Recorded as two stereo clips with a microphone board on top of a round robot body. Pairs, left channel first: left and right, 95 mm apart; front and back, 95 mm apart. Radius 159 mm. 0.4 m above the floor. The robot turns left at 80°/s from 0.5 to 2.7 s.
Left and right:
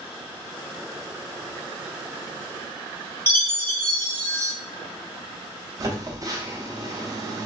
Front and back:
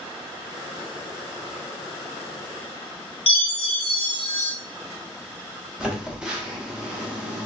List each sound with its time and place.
3.3 s a chime: 25° left, 1.1 m
5.8 s a phone buzzing: 105° right, 1.3 m